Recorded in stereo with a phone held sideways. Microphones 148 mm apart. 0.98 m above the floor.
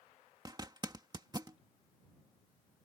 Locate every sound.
0.5 s a zipper: 30° right (ahead or behind)